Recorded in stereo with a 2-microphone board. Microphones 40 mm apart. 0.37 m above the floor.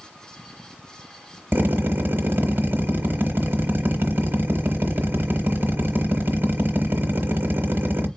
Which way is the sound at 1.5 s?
60° right (ahead or behind).